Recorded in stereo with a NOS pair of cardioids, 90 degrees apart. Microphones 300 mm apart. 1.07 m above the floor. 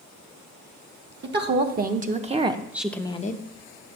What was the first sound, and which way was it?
A woman speaking, 35° right.